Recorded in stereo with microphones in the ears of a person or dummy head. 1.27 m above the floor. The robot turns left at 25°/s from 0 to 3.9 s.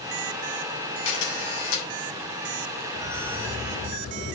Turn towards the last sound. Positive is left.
turn(degrees=40)  # may be behind; listen again after turning